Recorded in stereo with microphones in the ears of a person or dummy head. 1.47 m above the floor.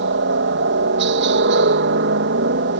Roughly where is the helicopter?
Right.